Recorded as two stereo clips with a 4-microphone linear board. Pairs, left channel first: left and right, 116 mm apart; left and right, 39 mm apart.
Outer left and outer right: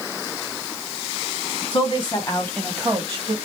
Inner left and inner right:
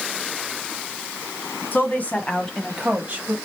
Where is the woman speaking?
55° left (ahead or behind), 1.9 m; by 3.4 s 45° right (ahead or behind), 1.5 m.